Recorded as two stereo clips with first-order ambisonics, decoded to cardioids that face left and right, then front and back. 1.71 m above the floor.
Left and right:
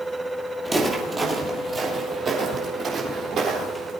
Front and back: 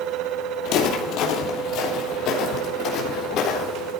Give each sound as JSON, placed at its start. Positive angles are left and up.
{"t": 0.7, "sound": "footsteps", "azimuth_deg": -5, "distance_m": 3.0}